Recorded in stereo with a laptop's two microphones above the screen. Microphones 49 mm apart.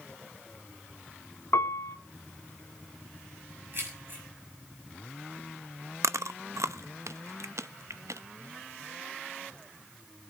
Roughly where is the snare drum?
I don't hear a snare drum.